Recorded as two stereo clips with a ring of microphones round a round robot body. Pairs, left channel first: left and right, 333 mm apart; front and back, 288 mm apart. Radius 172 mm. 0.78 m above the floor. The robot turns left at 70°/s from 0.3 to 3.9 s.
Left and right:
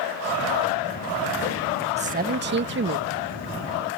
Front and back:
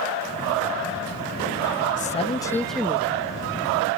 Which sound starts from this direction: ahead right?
A man speaking, at 2.0 s.